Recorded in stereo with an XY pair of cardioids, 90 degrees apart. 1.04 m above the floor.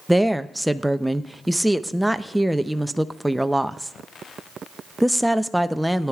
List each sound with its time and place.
0.1 s a woman speaking: 10° right, 0.6 m